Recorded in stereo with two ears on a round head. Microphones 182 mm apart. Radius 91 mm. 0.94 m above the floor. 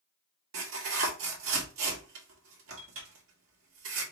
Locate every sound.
0.5 s tearing paper: 70° right (ahead or behind), 1.5 m